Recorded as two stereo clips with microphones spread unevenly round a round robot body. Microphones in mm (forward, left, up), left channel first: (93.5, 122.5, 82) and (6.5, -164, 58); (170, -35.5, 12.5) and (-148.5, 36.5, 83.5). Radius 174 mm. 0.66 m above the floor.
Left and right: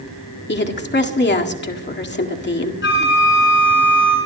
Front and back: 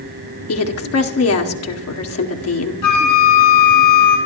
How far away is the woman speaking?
About 1.8 m.